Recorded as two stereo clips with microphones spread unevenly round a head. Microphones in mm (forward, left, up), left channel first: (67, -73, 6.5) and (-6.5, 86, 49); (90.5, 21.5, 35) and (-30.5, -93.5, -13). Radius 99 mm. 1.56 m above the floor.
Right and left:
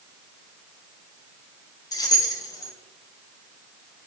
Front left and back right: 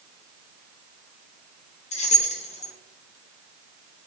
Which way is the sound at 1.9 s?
10° left.